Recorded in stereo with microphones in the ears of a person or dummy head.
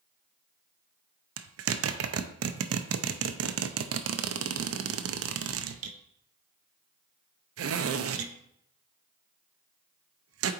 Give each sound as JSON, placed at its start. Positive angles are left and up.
{"t": 1.4, "sound": "a zipper", "side_deg": -75, "distance_m": 0.5}